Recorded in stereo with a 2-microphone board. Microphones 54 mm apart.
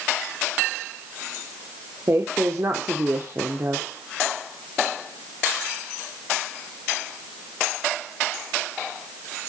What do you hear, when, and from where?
2.1 s a woman speaking: 50° right (ahead or behind), 1.1 m